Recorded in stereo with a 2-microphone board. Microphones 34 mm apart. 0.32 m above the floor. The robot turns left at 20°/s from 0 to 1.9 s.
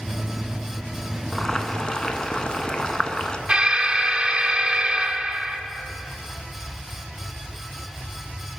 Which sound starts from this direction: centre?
Boiling, at 1.3 s.